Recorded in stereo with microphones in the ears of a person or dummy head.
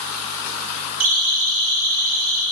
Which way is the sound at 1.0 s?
55° right (ahead or behind).